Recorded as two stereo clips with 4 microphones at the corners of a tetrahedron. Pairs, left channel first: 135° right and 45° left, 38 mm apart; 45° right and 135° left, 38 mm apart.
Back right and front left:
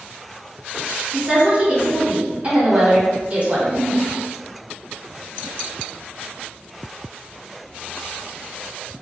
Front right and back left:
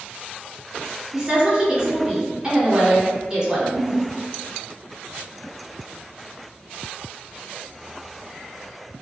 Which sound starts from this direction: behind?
A giggle, at 3.5 s.